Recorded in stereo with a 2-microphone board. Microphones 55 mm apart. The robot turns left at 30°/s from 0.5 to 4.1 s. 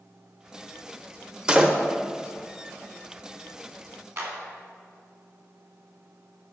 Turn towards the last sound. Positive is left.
turn(degrees=-50)  # may be behind; listen again after turning